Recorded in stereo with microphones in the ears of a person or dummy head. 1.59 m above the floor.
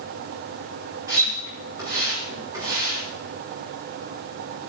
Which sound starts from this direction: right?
A splash, at 1.1 s.